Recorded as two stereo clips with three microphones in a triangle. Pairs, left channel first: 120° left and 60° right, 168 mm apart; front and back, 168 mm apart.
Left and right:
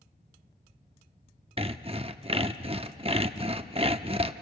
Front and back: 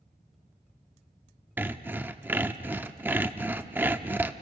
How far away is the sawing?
About 0.7 m.